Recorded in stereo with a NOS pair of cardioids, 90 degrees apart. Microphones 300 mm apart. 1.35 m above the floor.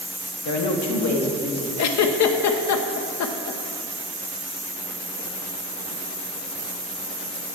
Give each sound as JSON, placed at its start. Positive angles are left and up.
{"t": 0.5, "sound": "a woman speaking", "azimuth_deg": 65, "distance_m": 1.1}
{"t": 1.8, "sound": "a giggle", "azimuth_deg": 65, "distance_m": 0.8}